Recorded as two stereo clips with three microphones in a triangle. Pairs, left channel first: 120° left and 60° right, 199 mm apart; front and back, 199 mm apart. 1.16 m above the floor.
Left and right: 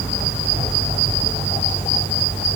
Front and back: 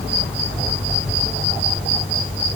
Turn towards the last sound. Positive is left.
No sound to turn to.